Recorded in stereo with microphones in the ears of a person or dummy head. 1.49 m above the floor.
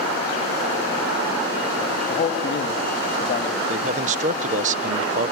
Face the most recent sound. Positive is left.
turn(degrees=-45)  # may be behind; listen again after turning